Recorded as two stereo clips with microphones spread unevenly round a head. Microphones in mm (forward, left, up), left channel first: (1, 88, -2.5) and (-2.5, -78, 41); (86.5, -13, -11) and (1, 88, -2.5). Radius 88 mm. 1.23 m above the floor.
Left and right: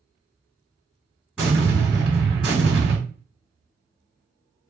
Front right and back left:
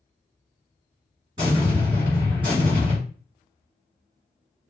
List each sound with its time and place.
1.4 s an explosion: 170° right, 2.5 m